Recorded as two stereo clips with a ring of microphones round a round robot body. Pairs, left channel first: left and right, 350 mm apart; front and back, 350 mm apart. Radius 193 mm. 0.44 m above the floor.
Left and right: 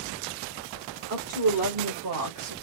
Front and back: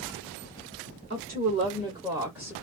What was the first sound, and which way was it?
A woman speaking, 125° right.